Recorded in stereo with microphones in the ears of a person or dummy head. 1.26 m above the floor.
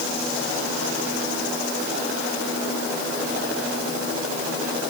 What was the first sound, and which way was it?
Only background noise.